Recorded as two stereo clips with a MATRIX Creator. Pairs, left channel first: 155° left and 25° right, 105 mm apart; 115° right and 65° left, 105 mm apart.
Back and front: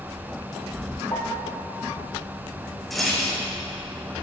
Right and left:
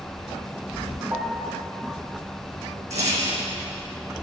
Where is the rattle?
70° left, 2.5 m.